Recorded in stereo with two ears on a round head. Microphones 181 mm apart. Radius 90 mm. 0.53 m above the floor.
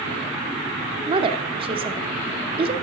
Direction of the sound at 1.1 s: 30° right (ahead or behind).